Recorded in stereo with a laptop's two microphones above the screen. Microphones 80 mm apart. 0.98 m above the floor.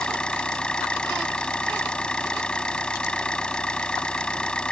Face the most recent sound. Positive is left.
turn(degrees=10)  # may be behind; listen again after turning